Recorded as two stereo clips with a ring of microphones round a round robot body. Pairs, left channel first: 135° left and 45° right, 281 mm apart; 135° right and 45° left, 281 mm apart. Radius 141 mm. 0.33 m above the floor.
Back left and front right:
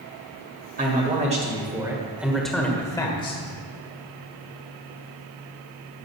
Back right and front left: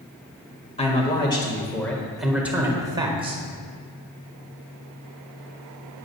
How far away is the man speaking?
About 1.6 m.